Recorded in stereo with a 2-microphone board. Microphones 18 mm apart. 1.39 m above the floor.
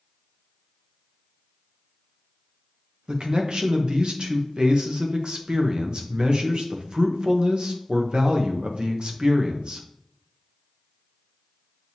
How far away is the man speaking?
About 0.8 m.